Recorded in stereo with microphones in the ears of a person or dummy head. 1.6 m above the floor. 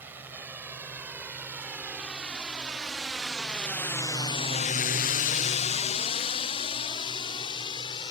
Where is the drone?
10° right (ahead or behind); by 8.1 s 25° left (ahead or behind).